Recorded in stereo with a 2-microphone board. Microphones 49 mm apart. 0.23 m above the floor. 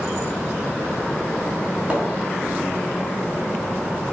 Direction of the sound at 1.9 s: 20° right (ahead or behind).